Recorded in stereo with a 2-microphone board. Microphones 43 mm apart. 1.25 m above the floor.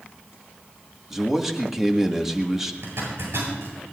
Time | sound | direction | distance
1.1 | a man speaking | 10° right (ahead or behind) | 1.6 m
2.8 | a zipper | 85° right | 8 m